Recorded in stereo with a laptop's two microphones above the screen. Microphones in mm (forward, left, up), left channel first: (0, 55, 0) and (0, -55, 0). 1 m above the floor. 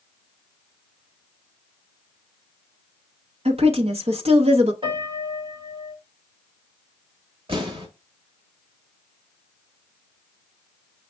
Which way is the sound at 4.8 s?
50° right (ahead or behind).